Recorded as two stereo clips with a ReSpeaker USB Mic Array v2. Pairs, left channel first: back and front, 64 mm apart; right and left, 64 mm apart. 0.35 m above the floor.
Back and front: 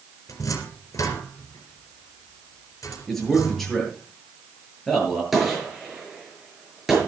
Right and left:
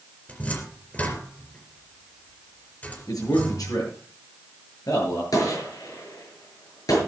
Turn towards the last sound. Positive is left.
turn(degrees=-85)